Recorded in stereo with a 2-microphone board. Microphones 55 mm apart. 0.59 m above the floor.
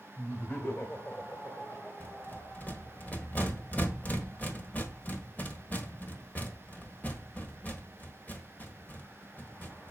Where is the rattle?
30° left (ahead or behind), 1.3 m.